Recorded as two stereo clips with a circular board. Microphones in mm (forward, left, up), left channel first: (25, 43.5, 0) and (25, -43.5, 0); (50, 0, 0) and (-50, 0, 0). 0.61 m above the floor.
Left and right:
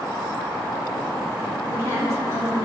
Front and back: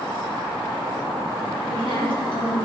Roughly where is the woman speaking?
Ahead right.